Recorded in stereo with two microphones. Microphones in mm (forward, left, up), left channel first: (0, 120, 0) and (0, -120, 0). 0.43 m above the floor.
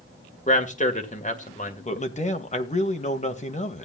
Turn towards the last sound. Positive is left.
turn(degrees=30)  # may be behind; listen again after turning